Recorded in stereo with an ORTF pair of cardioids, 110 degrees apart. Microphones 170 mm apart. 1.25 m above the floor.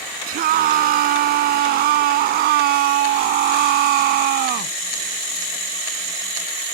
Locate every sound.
0.3 s a scream: 65° right; by 4.8 s 80° right